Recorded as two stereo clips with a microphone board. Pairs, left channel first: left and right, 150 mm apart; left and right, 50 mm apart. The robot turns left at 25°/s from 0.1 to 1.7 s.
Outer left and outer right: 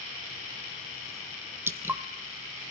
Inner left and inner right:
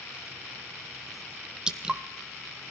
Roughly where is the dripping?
Centre.